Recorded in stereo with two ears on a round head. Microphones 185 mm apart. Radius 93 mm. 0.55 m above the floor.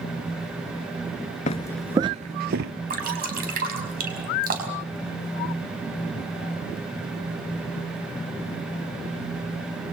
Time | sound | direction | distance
1.5 | footsteps | 35° left (ahead or behind) | 0.5 m
2.9 | dripping | 45° right (ahead or behind) | 5 m